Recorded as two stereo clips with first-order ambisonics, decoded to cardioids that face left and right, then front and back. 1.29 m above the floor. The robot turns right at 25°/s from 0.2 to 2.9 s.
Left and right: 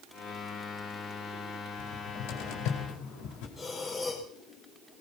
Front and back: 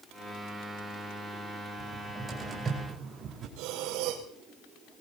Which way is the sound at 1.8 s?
90° left.